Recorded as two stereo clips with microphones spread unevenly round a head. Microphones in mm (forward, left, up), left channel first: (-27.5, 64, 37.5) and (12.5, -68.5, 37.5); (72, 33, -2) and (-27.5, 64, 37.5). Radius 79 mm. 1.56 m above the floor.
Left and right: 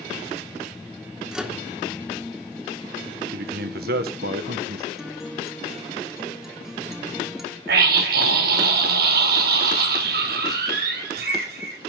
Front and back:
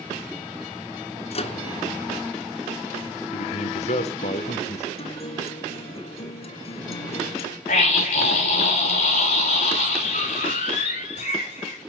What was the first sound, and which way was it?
A microwave, 15° left.